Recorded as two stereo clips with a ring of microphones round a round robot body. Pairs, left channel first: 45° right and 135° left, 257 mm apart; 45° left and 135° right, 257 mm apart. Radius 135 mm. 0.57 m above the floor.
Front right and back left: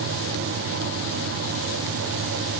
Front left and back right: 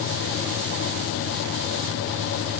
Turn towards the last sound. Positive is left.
No sound to turn to.